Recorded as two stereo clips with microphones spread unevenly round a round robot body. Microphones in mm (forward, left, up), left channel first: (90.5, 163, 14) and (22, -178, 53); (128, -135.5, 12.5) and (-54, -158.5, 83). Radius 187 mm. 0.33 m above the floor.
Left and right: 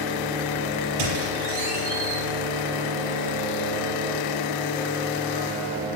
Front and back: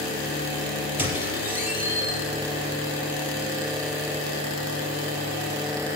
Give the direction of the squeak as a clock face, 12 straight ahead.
3 o'clock.